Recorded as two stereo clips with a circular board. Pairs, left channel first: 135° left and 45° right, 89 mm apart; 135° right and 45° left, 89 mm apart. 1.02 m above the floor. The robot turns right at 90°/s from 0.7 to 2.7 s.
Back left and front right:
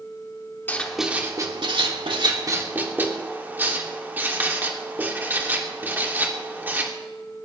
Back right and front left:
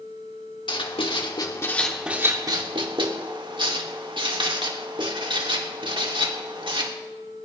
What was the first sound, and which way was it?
Writing, 155° right.